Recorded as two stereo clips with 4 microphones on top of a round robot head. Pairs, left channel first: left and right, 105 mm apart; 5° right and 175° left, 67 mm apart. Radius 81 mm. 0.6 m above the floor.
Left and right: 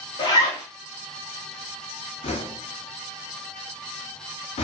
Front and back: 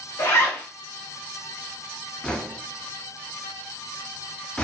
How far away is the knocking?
About 0.5 m.